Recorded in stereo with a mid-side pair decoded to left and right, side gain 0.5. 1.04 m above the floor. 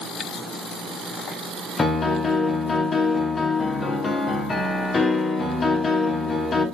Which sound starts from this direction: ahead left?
A piano, at 1.8 s.